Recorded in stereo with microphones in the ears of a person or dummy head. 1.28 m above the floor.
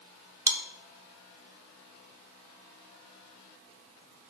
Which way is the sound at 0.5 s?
15° right (ahead or behind).